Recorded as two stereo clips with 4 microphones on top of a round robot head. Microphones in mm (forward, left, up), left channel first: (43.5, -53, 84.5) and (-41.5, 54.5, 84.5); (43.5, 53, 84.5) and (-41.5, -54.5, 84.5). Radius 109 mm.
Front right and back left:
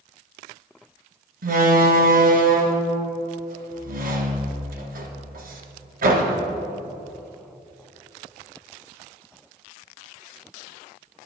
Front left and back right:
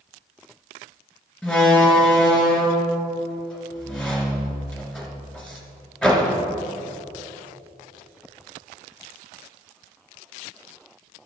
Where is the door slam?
135° left, 2 m.